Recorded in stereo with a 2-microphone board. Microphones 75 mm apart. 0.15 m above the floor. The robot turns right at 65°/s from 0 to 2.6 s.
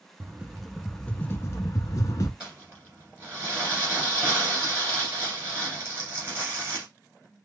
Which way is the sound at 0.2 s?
30° right.